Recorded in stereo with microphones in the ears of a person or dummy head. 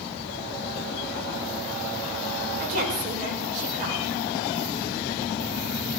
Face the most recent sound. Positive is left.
turn(degrees=-45)  # may be behind; listen again after turning